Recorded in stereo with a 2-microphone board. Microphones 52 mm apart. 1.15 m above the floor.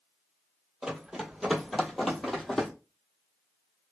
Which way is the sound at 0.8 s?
15° right (ahead or behind).